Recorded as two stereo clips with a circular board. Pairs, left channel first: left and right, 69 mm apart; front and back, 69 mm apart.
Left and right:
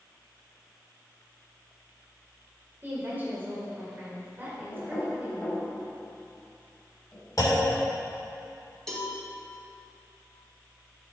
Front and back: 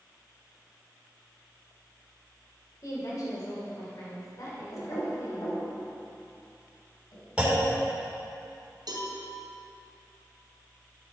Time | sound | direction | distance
2.8 | a woman speaking | 30° right | 2 m
4.7 | knocking | 20° left | 3 m
7.4 | a clunk | 105° left | 2.5 m
8.9 | a cowbell | 170° left | 2.5 m